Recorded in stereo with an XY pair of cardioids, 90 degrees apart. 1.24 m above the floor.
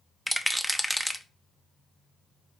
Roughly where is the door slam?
No door slam in this recording.